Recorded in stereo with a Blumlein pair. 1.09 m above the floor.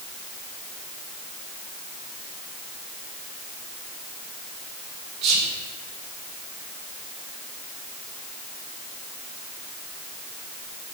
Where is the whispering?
35° right, 0.9 m.